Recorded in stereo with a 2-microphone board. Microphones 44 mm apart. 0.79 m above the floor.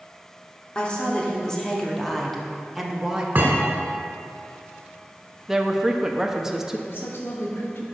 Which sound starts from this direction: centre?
A woman speaking, at 5.5 s.